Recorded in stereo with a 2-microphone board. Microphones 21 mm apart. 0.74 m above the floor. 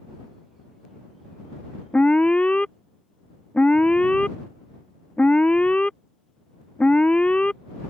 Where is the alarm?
70° left (ahead or behind).